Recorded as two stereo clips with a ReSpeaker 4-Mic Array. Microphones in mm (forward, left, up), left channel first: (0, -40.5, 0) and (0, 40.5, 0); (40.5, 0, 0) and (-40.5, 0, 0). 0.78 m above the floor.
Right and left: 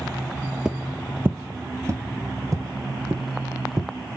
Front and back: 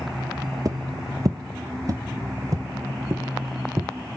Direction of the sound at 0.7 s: 165° left.